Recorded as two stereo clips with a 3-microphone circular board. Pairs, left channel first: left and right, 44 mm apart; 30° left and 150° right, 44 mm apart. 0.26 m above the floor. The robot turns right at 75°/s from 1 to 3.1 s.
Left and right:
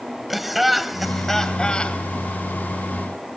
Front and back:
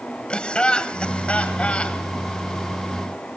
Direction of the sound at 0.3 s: 5° right.